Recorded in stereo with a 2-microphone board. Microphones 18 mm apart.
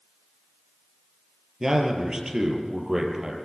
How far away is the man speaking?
About 4.5 m.